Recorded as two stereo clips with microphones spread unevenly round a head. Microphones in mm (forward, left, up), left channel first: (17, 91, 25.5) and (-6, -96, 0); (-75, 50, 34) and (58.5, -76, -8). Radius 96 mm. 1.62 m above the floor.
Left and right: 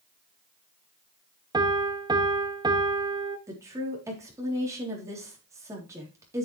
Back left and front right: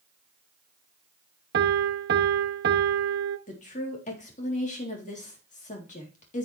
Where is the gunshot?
I don't hear a gunshot.